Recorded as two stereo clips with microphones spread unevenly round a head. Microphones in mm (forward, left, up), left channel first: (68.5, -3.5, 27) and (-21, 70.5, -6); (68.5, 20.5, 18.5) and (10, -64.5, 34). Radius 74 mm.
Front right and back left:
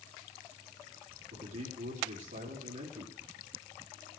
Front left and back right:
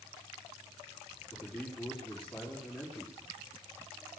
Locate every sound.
1.3 s a man speaking: 145° left, 4 m